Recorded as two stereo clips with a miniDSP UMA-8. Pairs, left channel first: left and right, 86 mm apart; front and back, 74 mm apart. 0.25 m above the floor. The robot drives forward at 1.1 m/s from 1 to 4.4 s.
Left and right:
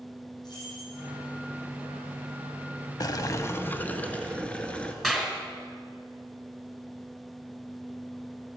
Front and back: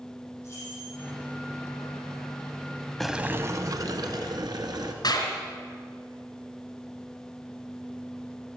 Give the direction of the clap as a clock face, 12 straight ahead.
12 o'clock.